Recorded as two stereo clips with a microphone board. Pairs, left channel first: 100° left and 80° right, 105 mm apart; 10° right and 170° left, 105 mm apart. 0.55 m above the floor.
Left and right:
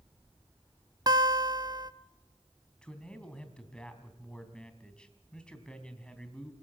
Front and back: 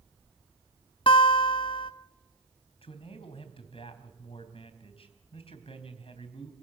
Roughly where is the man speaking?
Ahead.